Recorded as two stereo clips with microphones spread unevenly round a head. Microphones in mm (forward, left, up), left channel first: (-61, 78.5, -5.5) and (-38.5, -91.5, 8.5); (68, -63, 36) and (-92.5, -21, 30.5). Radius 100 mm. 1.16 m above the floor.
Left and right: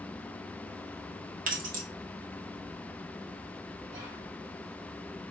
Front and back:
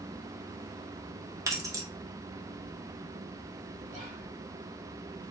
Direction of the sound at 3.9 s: 145° right.